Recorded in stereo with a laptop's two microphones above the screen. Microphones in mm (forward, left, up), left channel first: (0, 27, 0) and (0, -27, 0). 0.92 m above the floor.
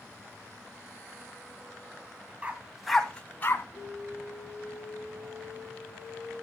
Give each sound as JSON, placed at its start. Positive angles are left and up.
{"t": 2.4, "sound": "a dog barking", "side_deg": -25, "distance_m": 1.6}
{"t": 3.8, "sound": "an alarm", "side_deg": 5, "distance_m": 7.5}